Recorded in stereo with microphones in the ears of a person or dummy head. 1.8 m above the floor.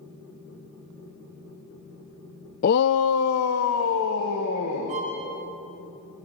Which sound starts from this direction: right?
A violin, at 4.9 s.